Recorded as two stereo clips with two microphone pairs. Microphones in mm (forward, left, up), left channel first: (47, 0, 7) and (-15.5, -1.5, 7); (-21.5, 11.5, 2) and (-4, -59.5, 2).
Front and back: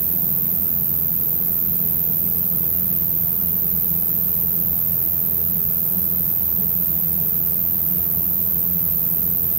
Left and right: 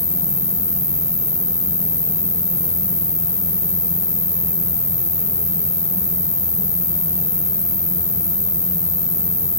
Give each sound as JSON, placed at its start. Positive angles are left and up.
{"t": 0.0, "sound": "an insect", "azimuth_deg": 140, "distance_m": 0.7}